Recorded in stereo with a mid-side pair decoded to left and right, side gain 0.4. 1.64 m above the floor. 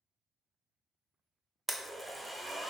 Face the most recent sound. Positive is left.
turn(degrees=-15)